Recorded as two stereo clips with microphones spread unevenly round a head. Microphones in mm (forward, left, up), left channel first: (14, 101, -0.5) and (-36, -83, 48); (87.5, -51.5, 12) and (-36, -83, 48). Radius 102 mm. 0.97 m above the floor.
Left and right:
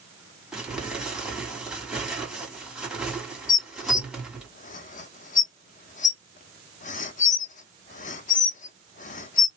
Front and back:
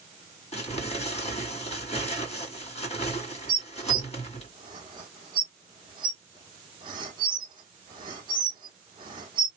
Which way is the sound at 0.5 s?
15° right.